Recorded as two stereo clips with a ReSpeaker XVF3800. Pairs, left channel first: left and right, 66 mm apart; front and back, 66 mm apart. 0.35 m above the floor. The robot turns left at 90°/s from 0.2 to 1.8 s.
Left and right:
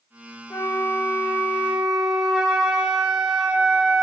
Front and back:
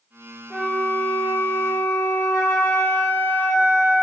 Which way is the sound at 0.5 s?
95° left.